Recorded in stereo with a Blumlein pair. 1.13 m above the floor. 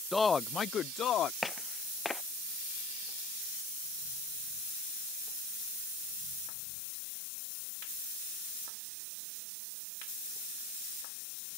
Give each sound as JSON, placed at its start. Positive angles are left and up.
{"t": 0.1, "sound": "a man speaking", "azimuth_deg": 5}
{"t": 1.4, "sound": "footsteps", "azimuth_deg": 10}